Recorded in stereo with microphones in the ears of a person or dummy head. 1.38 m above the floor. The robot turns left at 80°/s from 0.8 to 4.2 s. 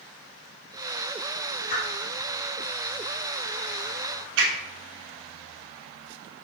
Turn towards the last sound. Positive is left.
turn(degrees=-70)  # may be behind; listen again after turning